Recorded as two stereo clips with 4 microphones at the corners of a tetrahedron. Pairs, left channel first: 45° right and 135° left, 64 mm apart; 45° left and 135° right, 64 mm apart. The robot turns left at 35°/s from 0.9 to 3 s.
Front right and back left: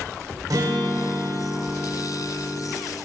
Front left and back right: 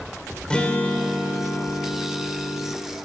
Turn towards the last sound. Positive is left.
turn(degrees=45)